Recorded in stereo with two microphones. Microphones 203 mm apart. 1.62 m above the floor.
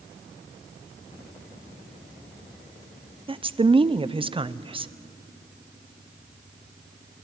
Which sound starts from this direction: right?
A woman speaking, at 3.3 s.